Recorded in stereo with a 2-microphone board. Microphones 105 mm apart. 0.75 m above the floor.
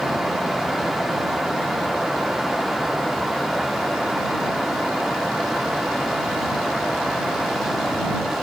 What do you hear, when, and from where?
Only background noise.